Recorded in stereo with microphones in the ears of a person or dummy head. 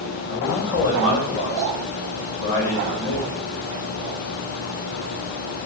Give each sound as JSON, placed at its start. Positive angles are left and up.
{"t": 0.3, "sound": "a man speaking", "side_deg": 60, "distance_m": 3.0}